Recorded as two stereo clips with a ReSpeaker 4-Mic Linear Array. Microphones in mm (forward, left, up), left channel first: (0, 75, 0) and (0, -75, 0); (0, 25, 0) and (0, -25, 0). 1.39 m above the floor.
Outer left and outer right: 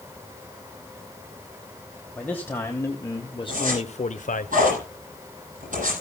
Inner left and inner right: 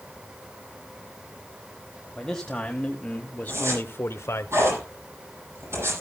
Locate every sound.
2.1 s a man speaking: 10° left (ahead or behind), 1.6 m; by 4.5 s 70° left (ahead or behind), 0.8 m
3.5 s a zipper: 65° right (ahead or behind), 9 m